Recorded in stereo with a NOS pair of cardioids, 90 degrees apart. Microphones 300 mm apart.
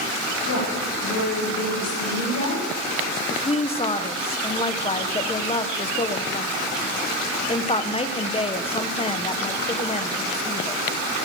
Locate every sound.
0.5 s a woman speaking: 60° left, 6.5 m; by 3.2 s 70° left, 6.5 m
3.3 s a woman speaking: 20° left, 1.1 m